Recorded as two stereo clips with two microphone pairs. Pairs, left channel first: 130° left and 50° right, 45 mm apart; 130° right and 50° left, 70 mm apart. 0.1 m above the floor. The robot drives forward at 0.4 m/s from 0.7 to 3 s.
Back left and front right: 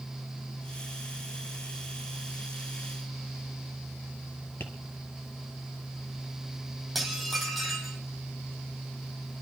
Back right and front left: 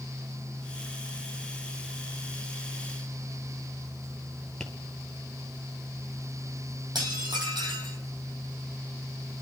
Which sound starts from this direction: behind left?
Tapping, at 4.6 s.